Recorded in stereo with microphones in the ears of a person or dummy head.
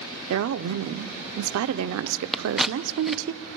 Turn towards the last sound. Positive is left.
turn(degrees=0)  # may be behind; listen again after turning